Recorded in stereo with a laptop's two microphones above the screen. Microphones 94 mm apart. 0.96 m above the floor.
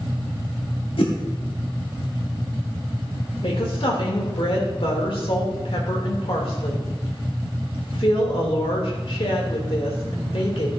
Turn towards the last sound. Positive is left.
turn(degrees=75)  # may be behind; listen again after turning